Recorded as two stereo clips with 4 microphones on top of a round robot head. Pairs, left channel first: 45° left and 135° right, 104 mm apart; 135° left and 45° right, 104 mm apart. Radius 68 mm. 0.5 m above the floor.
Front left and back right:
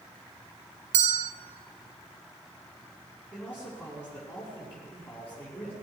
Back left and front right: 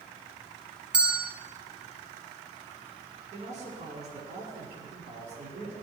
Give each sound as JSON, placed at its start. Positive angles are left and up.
{"t": 0.9, "sound": "a bell", "azimuth_deg": -125, "distance_m": 0.6}
{"t": 3.3, "sound": "a man speaking", "azimuth_deg": -50, "distance_m": 5.5}